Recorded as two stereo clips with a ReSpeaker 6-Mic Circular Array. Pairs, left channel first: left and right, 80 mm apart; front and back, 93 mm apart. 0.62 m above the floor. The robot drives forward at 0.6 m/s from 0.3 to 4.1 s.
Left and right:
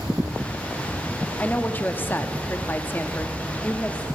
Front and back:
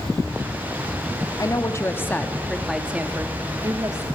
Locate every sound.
1.4 s a woman speaking: 25° left, 1.1 m; by 4.1 s 155° left, 1.2 m